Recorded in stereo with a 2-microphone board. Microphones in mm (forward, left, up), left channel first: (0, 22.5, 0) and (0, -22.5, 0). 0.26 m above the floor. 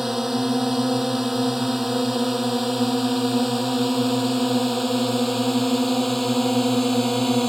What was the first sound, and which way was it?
A drone, 5° right (ahead or behind).